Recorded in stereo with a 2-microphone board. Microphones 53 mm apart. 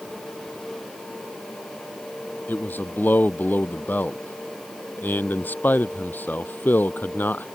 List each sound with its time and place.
2.5 s a man speaking: 35° left (ahead or behind)